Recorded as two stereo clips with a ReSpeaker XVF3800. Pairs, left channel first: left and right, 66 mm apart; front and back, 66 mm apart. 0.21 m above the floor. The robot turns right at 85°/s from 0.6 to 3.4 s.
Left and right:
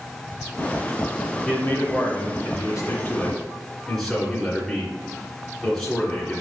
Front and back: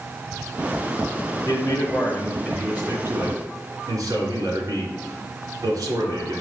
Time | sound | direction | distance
1.4 | a man speaking | 10° left | 2.5 m